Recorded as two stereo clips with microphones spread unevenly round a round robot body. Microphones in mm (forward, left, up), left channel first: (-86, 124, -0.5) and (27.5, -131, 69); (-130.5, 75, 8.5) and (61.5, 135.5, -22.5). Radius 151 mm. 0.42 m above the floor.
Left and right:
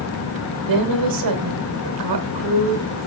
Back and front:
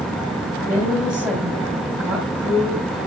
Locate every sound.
0.7 s a woman speaking: 65° right, 2.5 m